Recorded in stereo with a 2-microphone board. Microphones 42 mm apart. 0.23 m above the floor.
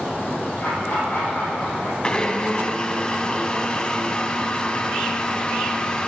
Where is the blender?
20° left (ahead or behind), 0.6 m.